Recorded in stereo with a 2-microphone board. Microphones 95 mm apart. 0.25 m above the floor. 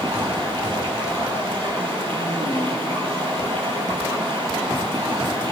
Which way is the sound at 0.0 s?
65° right (ahead or behind).